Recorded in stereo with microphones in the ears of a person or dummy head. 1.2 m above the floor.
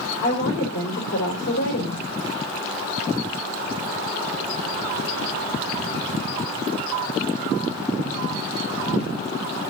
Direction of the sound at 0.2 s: 70° left (ahead or behind).